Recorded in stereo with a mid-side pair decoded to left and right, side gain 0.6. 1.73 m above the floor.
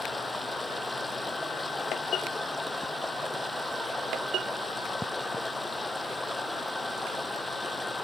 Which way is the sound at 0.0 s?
10° left.